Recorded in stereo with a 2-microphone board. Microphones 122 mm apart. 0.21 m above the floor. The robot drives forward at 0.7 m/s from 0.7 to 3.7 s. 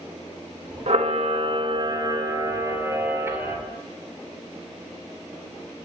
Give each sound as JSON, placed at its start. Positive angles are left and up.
{"t": 0.9, "sound": "a camera shutter", "side_deg": -60, "distance_m": 0.7}